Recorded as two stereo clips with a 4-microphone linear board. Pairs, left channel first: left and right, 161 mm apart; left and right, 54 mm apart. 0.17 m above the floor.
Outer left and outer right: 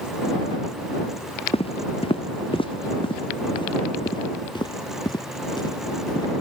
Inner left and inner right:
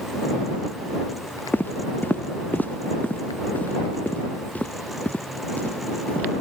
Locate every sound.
1.5 s footsteps: 35° left (ahead or behind); by 6.3 s 25° left (ahead or behind)